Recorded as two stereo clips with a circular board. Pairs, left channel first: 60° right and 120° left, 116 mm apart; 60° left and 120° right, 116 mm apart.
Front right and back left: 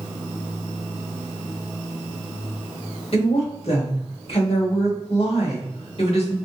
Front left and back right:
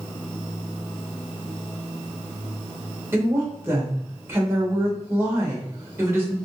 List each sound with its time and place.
3.1 s a woman speaking: 55° right, 1.4 m